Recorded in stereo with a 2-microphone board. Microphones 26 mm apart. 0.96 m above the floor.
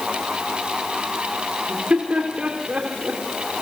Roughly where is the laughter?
Right.